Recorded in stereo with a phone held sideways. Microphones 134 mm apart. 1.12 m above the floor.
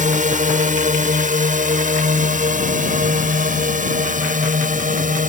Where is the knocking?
I don't hear knocking.